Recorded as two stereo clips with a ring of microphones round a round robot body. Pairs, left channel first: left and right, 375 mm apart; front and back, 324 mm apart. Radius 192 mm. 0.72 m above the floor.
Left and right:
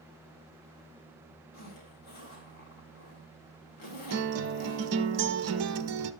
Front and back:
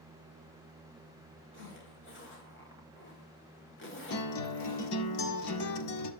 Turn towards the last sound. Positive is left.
turn(degrees=-40)